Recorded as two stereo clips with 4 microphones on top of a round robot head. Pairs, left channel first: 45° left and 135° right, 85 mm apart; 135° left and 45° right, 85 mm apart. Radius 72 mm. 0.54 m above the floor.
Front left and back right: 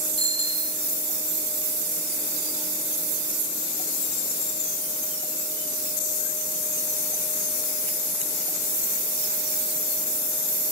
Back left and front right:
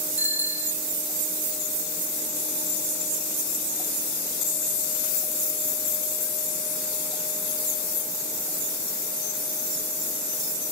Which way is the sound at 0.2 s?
25° left.